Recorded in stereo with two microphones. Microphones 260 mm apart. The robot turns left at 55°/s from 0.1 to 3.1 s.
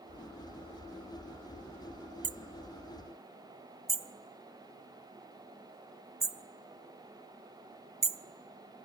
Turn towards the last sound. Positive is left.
turn(degrees=-50)  # may be behind; listen again after turning